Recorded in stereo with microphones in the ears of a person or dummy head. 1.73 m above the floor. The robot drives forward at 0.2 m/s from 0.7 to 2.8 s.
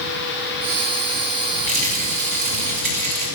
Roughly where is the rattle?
Right.